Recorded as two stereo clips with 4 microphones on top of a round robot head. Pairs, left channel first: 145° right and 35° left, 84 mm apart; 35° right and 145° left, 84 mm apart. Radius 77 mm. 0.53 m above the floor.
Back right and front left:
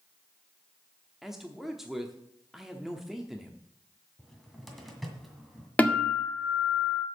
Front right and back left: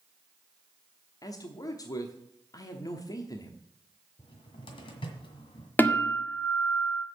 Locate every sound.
1.2 s a man speaking: 50° right, 1.0 m
4.2 s a cupboard door: 55° right, 1.8 m
5.8 s a guitar: 85° right, 1.5 m